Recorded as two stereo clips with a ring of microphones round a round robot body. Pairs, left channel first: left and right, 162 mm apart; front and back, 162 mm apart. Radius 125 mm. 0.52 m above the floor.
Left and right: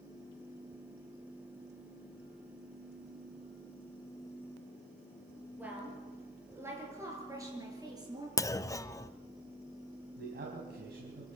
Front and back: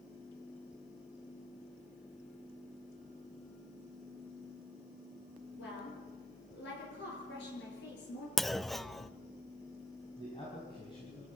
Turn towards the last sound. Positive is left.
turn(degrees=-70)